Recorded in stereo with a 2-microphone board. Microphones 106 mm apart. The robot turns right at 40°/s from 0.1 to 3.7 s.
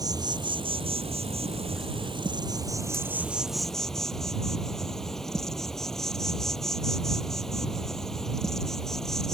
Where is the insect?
140° right; by 9.4 s 5° left.